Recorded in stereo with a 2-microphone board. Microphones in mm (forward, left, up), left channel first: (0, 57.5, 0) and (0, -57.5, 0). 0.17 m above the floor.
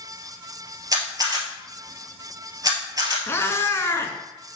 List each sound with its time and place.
0.9 s a camera shutter: 35° right (ahead or behind), 1.9 m
3.3 s a cat meowing: 25° left (ahead or behind), 0.9 m